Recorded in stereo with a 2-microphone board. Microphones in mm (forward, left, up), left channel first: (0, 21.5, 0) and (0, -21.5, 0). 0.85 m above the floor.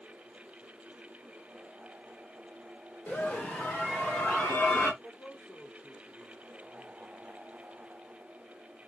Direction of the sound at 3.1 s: 40° left (ahead or behind).